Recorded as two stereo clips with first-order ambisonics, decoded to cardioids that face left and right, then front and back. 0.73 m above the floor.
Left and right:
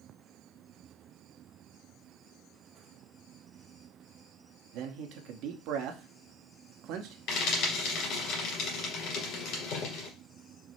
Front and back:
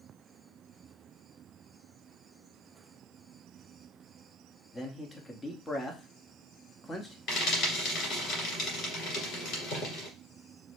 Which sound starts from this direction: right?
A man speaking, at 4.7 s.